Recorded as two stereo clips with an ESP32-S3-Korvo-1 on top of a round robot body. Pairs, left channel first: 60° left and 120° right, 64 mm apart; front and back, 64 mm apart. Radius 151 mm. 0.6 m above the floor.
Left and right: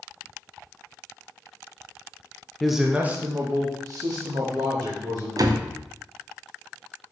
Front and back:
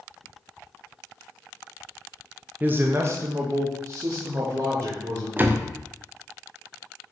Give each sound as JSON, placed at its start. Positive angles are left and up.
{"t": 2.6, "sound": "a man speaking", "azimuth_deg": 145, "distance_m": 0.9}
{"t": 5.4, "sound": "a door slam", "azimuth_deg": -120, "distance_m": 0.8}